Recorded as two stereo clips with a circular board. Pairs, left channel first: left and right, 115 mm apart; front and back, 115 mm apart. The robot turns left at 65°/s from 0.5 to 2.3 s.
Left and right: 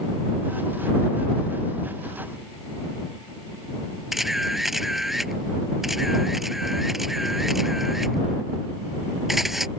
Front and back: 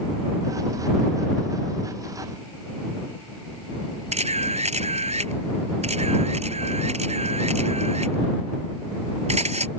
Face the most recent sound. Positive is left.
turn(degrees=180)